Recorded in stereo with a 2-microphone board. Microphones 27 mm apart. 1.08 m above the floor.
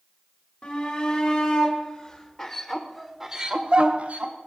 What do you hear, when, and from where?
0.6 s a shout: 55° left (ahead or behind), 3.5 m; by 4.3 s 65° right (ahead or behind), 1.6 m